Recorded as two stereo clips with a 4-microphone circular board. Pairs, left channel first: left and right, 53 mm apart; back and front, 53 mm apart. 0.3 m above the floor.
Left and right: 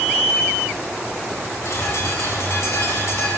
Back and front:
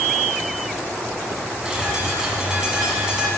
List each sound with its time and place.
1.6 s a bird: 75° left, 1.6 m